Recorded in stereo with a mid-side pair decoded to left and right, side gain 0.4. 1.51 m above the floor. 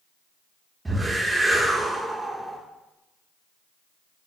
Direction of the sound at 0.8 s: 25° right.